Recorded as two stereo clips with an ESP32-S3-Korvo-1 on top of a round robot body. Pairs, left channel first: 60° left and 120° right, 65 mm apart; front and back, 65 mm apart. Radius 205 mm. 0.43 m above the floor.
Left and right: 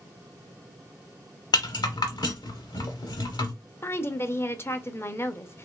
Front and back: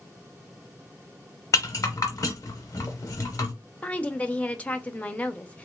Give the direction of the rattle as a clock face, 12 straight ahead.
10 o'clock.